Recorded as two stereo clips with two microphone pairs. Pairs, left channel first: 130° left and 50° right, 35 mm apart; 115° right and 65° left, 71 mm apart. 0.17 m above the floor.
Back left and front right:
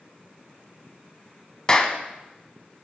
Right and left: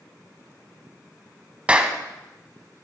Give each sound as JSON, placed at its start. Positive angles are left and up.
{"t": 1.7, "sound": "a clap", "azimuth_deg": 105, "distance_m": 0.9}